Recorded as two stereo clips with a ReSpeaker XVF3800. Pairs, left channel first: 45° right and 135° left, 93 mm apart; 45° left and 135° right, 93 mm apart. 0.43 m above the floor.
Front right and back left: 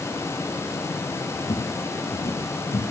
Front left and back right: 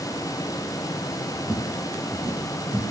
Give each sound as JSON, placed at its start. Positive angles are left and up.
{"t": 1.4, "sound": "footsteps", "azimuth_deg": -25, "distance_m": 3.0}